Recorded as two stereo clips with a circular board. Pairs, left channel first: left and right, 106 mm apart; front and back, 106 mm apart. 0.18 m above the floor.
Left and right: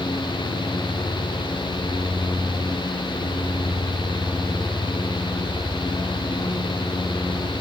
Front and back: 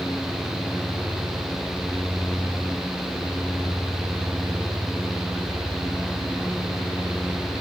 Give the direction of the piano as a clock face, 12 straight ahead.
No piano in this recording.